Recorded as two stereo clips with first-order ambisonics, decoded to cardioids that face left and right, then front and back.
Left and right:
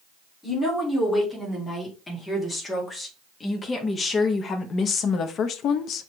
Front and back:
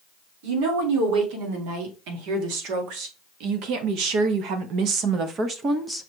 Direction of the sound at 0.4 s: 170° left.